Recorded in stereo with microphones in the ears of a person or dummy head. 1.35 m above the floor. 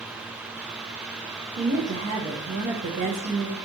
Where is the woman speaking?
35° right (ahead or behind), 0.6 m.